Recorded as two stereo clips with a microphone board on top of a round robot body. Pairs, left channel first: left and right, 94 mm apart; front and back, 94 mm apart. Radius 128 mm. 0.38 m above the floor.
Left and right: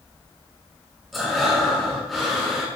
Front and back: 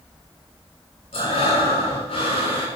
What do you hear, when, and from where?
1.1 s breathing: straight ahead, 5.5 m